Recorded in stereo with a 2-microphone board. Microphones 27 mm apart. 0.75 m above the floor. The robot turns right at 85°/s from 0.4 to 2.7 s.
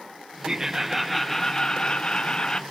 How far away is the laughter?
About 0.8 m.